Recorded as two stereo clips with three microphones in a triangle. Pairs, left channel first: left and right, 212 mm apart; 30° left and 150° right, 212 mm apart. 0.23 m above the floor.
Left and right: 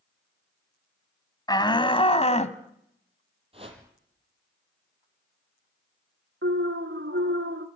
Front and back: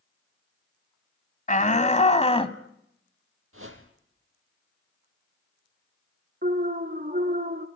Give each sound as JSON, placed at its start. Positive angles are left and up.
{"t": 1.5, "sound": "a shout", "azimuth_deg": 30, "distance_m": 1.7}
{"t": 3.5, "sound": "a whoosh", "azimuth_deg": -155, "distance_m": 5.0}
{"t": 6.4, "sound": "an alarm", "azimuth_deg": -105, "distance_m": 2.0}